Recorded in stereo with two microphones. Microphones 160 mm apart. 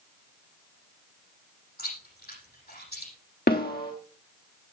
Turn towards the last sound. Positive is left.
turn(degrees=75)  # may be behind; listen again after turning